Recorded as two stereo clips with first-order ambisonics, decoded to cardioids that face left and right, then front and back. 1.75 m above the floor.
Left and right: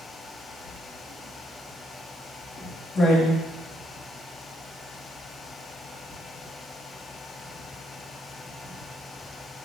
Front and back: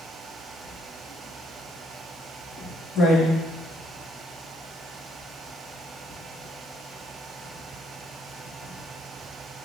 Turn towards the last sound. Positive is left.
turn(degrees=20)